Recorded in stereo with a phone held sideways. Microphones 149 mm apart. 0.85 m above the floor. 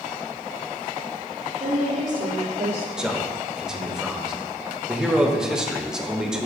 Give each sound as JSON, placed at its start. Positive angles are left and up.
{"t": 1.6, "sound": "a woman speaking", "side_deg": -60, "distance_m": 2.5}
{"t": 3.0, "sound": "a man speaking", "side_deg": -5, "distance_m": 0.9}